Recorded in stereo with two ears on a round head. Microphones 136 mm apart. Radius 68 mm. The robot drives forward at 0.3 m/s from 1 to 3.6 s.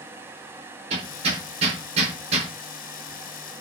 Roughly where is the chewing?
I don't hear chewing.